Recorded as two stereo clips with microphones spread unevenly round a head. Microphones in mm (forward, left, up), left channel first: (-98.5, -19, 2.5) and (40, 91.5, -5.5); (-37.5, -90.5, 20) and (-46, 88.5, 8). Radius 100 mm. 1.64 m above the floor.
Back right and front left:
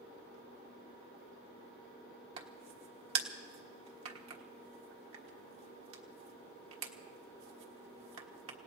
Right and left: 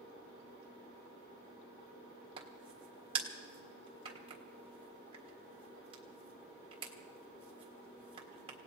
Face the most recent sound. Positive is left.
turn(degrees=25)